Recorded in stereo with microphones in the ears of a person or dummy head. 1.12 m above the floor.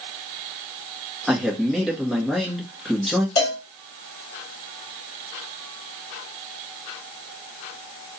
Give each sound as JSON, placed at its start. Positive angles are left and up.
{"t": 1.3, "sound": "a man speaking", "side_deg": 0, "distance_m": 1.5}
{"t": 3.4, "sound": "a cowbell", "side_deg": 25, "distance_m": 0.9}